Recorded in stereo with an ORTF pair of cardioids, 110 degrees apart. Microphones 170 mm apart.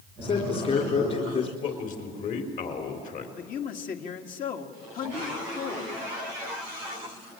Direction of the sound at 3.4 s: 55° left.